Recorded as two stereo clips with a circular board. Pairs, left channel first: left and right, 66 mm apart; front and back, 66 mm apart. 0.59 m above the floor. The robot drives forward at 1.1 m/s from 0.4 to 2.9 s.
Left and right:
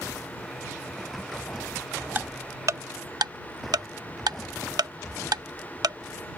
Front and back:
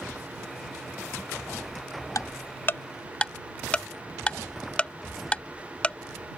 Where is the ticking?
30° right; by 6.4 s 70° right.